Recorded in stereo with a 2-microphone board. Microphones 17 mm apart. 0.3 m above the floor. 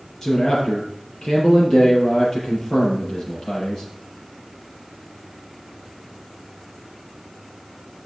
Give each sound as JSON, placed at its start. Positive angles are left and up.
{"t": 0.2, "sound": "a man speaking", "side_deg": 35, "distance_m": 6.0}